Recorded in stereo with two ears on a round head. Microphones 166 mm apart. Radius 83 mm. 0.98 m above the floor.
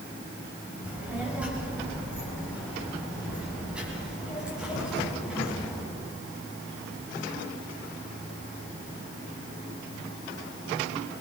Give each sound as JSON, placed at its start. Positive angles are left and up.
{"t": 0.8, "sound": "a child speaking", "side_deg": -5, "distance_m": 5.0}